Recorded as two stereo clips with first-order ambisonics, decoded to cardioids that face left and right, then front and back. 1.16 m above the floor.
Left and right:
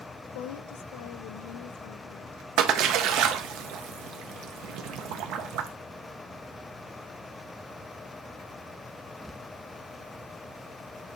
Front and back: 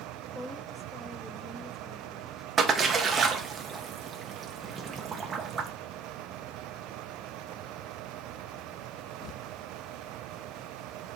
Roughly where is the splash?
Right.